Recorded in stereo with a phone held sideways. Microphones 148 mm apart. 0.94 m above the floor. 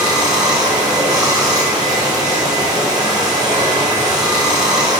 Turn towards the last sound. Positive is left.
turn(degrees=-25)  # may be behind; listen again after turning